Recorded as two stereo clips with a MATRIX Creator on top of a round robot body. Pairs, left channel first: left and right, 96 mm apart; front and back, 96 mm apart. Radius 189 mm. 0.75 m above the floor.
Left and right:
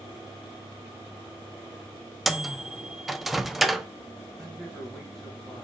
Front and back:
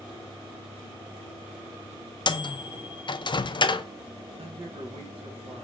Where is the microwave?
Straight ahead, 0.5 m.